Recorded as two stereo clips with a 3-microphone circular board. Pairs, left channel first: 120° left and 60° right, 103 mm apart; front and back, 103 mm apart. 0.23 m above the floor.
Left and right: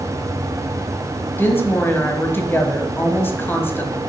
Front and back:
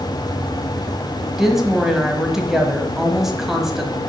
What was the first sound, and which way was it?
A woman speaking, 100° left.